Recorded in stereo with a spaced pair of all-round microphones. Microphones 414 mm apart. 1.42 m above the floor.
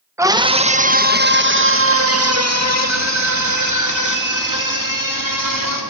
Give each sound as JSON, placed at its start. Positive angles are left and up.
{"t": 0.2, "sound": "a scream", "side_deg": -5, "distance_m": 1.4}